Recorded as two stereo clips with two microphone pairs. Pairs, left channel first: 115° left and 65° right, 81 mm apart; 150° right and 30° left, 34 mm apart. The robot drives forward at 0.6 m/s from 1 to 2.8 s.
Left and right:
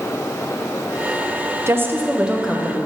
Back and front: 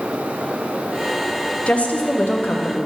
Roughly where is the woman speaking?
Right.